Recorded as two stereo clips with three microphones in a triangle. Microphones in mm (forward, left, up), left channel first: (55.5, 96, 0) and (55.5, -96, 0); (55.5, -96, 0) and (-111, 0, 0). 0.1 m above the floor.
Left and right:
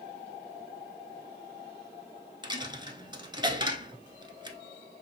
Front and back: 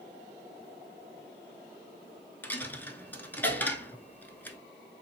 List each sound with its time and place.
2.4 s a dropped coin: 95° right, 0.6 m